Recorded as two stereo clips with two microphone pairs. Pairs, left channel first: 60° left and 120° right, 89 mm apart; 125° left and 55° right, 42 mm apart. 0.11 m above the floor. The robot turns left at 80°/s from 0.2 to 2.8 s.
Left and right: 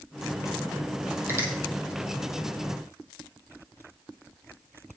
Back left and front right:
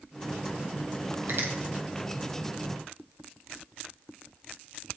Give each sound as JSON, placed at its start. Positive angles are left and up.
{"t": 1.3, "sound": "a finger snap", "azimuth_deg": -60, "distance_m": 2.5}